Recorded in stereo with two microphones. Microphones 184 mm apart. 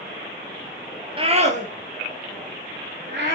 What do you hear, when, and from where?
1.2 s a scream: 30° right (ahead or behind), 1.8 m; by 3.4 s 60° right (ahead or behind), 2.5 m